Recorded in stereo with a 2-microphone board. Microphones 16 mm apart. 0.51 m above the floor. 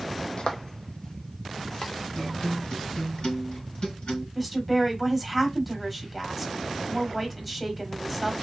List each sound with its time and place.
0.4 s footsteps: 65° left (ahead or behind), 1.0 m; by 1.9 s 35° left (ahead or behind), 1.6 m
2.1 s a guitar: 75° left (ahead or behind), 3 m
4.3 s a woman speaking: 5° left (ahead or behind), 1.8 m